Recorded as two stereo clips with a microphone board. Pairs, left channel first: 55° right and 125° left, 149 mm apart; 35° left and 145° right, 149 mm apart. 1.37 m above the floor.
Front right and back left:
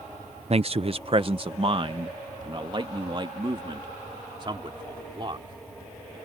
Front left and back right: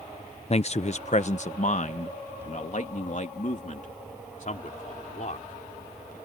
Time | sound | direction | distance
0.5 | a man speaking | 80° left | ?